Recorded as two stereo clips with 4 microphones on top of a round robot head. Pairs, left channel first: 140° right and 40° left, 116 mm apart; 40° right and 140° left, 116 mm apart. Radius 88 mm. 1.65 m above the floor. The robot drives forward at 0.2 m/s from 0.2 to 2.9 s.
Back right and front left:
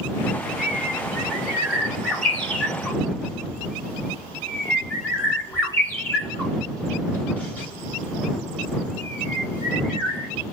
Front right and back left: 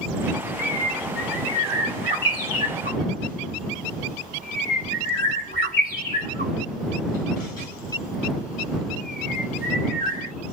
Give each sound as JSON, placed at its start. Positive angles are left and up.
{"t": 0.6, "sound": "a bird", "azimuth_deg": -50, "distance_m": 1.8}